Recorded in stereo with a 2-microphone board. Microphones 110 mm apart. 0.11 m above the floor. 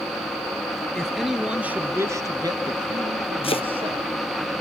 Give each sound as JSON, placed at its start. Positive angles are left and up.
{"t": 0.9, "sound": "a man speaking", "side_deg": 5, "distance_m": 1.6}
{"t": 3.4, "sound": "chopping", "side_deg": 60, "distance_m": 0.9}